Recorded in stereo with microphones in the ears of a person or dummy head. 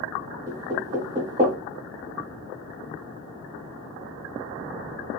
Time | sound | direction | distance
0.5 | knocking | 25° right (ahead or behind) | 0.7 m